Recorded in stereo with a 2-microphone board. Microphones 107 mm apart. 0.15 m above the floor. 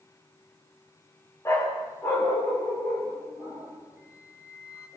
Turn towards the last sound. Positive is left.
turn(degrees=-15)  # may be behind; listen again after turning